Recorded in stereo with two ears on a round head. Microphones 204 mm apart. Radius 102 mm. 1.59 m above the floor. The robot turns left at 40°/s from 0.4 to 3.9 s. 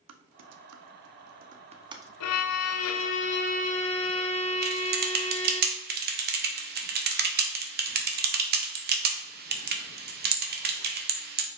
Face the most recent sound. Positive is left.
turn(degrees=-45)  # may be behind; listen again after turning